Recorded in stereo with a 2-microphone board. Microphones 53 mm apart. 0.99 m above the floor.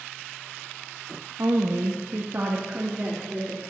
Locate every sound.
1.4 s a woman speaking: 60° right (ahead or behind), 0.9 m; by 3.6 s 25° right (ahead or behind), 3 m